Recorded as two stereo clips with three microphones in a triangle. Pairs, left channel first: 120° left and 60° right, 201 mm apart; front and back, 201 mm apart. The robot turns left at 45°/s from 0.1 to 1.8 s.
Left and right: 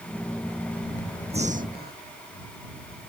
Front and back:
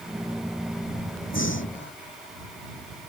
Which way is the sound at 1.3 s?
Straight ahead.